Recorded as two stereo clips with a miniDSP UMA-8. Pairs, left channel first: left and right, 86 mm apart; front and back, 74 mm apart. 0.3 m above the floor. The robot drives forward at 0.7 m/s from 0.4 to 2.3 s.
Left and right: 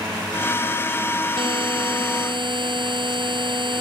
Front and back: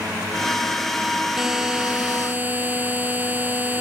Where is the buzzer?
95° right; by 3.8 s 115° right.